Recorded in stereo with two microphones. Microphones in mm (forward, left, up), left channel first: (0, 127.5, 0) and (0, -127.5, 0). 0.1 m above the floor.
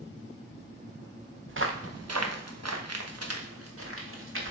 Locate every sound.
1.5 s footsteps: 50° right (ahead or behind), 1.0 m